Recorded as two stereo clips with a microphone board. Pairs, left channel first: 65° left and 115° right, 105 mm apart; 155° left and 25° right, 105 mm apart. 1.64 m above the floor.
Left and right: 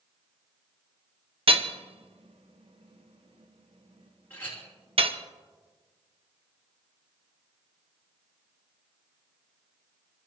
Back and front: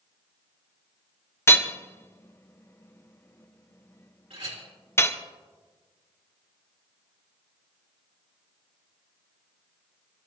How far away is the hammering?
About 0.9 m.